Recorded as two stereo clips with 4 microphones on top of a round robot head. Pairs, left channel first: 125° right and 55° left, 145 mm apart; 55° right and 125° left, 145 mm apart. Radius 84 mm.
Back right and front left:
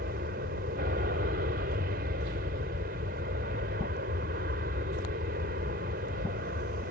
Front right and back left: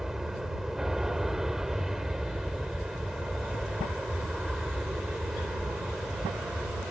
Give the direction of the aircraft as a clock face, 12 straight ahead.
11 o'clock.